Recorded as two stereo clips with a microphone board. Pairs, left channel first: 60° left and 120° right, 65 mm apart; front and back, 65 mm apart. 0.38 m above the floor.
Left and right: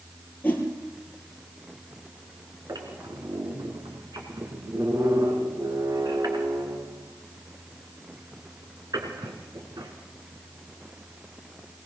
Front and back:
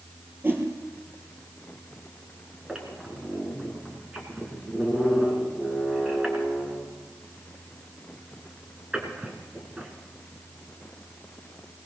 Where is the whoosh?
125° left, 4 m.